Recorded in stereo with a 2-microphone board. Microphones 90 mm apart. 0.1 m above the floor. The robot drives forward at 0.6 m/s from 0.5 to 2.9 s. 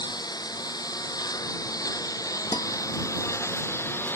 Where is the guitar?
55° left (ahead or behind); by 2.7 s 50° left (ahead or behind).